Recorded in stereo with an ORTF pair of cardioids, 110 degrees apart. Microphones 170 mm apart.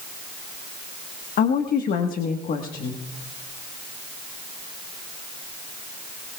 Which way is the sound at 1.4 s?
55° left.